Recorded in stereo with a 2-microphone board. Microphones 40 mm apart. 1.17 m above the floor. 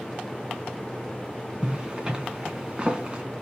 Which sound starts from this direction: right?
A zipper, at 1.6 s.